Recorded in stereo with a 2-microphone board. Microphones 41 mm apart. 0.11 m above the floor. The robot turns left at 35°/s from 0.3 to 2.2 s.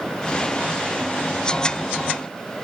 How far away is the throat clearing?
No throat clearing in this recording.